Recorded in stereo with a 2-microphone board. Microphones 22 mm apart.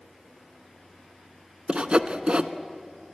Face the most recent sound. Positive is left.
turn(degrees=-50)  # may be behind; listen again after turning